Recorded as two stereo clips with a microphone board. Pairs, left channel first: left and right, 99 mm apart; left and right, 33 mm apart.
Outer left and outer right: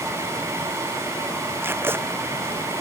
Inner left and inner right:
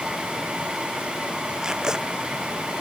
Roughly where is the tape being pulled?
Right.